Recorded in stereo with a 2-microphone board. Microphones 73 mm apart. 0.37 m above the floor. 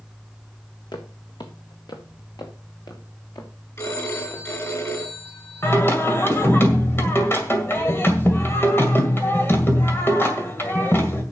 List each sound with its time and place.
0.9 s footsteps: 75° left (ahead or behind), 1.6 m; by 4.5 s 60° left (ahead or behind), 3.5 m
3.8 s a phone ringing: 40° left (ahead or behind), 3.5 m
5.6 s singing: 30° left (ahead or behind), 2.0 m